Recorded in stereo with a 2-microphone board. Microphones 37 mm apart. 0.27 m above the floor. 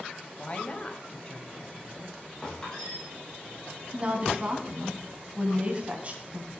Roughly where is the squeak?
Centre.